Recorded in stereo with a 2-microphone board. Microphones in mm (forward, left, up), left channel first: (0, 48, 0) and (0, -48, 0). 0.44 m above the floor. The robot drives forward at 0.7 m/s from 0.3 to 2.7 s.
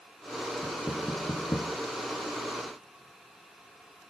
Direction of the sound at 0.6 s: 35° left (ahead or behind).